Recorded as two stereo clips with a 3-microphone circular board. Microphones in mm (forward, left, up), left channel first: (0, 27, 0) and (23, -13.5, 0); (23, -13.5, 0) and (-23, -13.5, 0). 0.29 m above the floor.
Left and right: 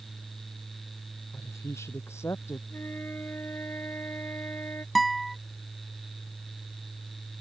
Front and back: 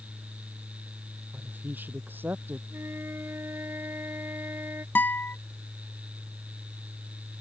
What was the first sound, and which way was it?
A woman speaking, 135° left.